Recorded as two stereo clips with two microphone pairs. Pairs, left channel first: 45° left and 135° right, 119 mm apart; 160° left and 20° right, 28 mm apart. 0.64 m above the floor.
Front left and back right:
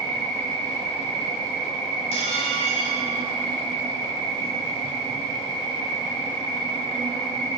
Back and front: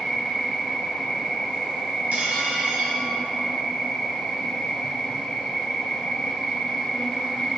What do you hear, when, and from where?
0.0 s an insect: 90° left, 2.5 m
2.1 s dishes clattering: 10° left, 2.5 m